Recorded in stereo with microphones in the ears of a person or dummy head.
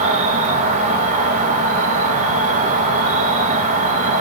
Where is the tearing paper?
I don't hear tearing paper.